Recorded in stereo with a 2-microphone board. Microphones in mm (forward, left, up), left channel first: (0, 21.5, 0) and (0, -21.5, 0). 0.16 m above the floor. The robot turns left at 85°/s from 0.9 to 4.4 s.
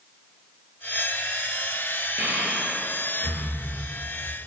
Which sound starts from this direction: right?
Breathing, at 2.2 s.